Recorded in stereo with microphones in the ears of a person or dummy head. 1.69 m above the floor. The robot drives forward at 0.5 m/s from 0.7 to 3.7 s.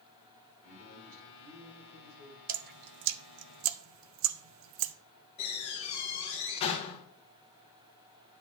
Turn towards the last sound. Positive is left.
turn(degrees=30)  # may be behind; listen again after turning